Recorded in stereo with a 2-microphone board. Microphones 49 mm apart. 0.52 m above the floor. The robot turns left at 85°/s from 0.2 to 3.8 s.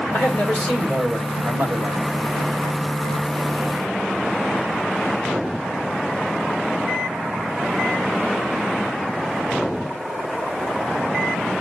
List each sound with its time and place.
0.1 s a man speaking: 60° left, 3 m; by 2.1 s 100° right, 3 m